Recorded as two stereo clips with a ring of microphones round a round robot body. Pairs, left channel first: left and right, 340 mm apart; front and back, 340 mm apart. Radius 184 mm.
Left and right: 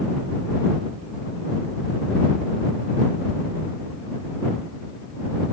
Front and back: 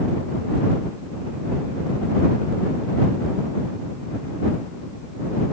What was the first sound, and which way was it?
Only background noise.